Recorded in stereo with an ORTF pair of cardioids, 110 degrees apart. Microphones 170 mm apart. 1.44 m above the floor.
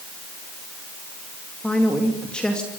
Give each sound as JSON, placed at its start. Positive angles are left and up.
{"t": 1.6, "sound": "a man speaking", "azimuth_deg": 5, "distance_m": 2.5}